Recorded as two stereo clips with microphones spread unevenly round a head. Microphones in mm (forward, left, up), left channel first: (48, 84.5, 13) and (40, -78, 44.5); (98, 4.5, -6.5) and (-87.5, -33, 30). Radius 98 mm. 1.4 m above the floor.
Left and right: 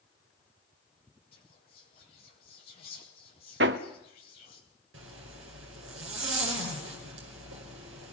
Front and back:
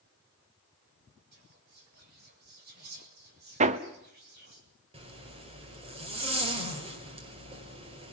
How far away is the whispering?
About 8 m.